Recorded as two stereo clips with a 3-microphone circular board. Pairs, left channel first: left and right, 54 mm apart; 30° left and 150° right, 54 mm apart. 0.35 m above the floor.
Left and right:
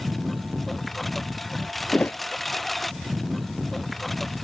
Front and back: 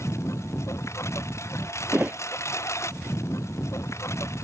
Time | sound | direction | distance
0.0 | a lawn mower | 5° left | ?
1.9 | a thud | 150° left | ?